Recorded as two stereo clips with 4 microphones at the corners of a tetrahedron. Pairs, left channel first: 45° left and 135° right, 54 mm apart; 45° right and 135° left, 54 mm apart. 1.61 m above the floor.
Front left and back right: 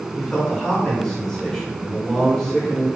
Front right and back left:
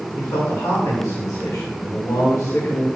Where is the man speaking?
30° right, 1.6 m.